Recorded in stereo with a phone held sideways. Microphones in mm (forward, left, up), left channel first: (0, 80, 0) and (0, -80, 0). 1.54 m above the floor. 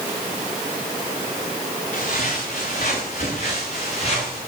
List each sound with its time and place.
1.9 s footsteps: 55° left (ahead or behind), 7.5 m; by 4.4 s 45° left (ahead or behind), 8 m